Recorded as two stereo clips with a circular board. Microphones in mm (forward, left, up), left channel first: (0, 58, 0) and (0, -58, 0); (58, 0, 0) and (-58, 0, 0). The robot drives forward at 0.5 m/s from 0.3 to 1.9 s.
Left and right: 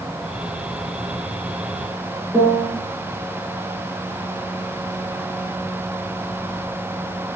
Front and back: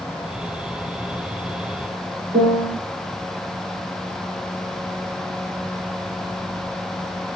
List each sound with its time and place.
2.3 s a piano: 165° right, 2.5 m